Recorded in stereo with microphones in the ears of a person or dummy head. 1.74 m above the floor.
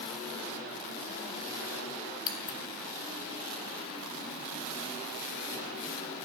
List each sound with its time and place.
2.3 s scissors: 30° left (ahead or behind), 0.7 m